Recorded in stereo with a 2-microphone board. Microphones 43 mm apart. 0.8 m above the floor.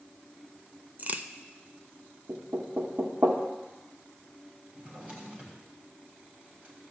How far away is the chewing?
No chewing in this recording.